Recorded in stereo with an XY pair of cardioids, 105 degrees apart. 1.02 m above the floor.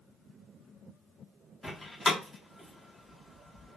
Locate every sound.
1.6 s a door slam: 20° left, 1.1 m